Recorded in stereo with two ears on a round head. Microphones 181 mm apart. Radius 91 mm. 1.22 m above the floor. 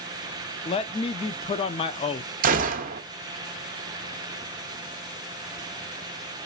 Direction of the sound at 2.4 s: 40° right (ahead or behind).